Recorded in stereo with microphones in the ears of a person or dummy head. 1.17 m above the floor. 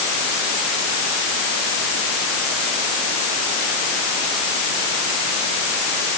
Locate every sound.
Only background noise.